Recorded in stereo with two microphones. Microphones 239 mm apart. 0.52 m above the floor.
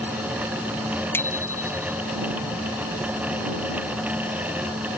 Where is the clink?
I don't hear a clink.